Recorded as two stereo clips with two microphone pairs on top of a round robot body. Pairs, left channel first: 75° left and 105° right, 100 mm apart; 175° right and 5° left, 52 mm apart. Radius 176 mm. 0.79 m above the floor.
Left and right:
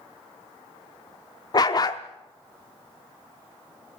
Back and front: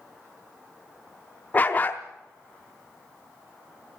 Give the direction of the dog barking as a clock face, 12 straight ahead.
8 o'clock.